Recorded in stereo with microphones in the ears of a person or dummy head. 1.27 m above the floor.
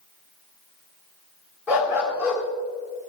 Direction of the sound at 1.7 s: 10° right (ahead or behind).